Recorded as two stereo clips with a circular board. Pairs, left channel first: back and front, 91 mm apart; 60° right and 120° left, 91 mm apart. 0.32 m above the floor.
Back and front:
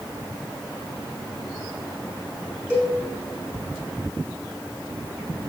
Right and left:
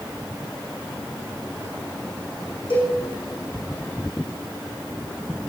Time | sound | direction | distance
2.7 | a cowbell | 70° right | 6 m